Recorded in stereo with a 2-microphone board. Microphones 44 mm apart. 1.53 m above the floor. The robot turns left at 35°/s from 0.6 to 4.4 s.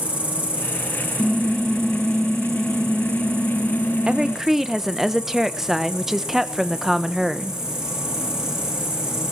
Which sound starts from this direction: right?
A woman speaking, at 4.1 s.